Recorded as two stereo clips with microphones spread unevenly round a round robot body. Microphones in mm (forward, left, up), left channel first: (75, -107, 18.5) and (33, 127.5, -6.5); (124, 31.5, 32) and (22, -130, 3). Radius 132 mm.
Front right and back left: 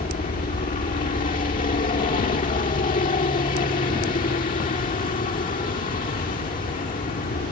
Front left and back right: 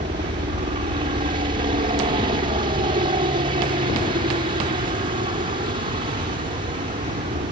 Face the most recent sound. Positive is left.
turn(degrees=-120)